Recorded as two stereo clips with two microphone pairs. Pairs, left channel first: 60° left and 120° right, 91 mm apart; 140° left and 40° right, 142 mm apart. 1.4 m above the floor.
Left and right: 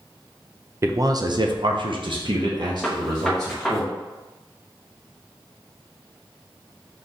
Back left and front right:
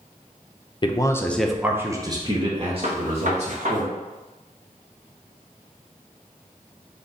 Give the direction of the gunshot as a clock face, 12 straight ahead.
1 o'clock.